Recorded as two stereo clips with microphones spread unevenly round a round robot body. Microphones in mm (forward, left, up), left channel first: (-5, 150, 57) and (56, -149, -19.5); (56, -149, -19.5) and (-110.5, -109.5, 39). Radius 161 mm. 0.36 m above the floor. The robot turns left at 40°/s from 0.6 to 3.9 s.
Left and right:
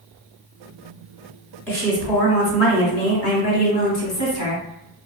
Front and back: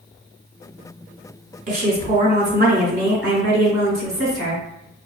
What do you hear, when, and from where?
1.7 s a woman speaking: 160° right, 1.6 m; by 4.6 s 110° left, 1.6 m